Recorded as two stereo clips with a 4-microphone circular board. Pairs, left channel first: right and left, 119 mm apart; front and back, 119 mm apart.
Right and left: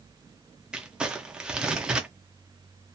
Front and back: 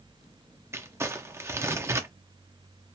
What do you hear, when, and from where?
0.7 s crumpling: 160° left, 0.5 m